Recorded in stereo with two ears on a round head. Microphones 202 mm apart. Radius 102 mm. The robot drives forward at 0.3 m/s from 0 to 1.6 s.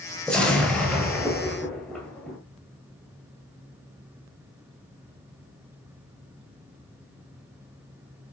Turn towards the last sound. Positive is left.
turn(degrees=5)  # may be behind; listen again after turning